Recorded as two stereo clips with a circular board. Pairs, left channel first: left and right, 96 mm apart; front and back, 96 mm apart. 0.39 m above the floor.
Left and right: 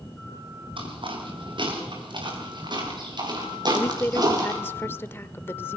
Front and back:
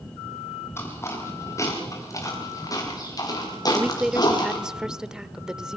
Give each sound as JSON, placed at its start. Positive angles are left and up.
{"t": 0.8, "sound": "footsteps", "azimuth_deg": -65, "distance_m": 7.0}
{"t": 3.7, "sound": "a woman speaking", "azimuth_deg": 110, "distance_m": 0.8}